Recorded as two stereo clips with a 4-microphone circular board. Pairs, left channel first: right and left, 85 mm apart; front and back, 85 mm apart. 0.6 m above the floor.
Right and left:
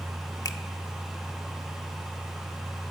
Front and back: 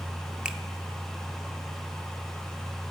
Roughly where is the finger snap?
Right.